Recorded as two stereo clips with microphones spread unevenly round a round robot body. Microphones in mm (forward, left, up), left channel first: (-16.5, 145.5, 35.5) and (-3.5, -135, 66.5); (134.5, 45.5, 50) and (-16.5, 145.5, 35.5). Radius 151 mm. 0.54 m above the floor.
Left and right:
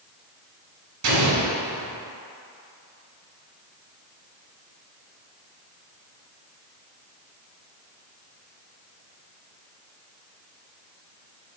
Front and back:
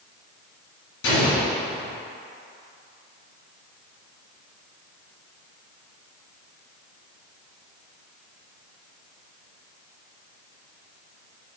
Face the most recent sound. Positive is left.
turn(degrees=-55)